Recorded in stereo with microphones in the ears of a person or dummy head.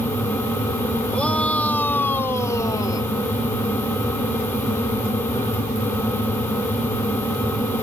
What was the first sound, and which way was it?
A shout, 5° left (ahead or behind).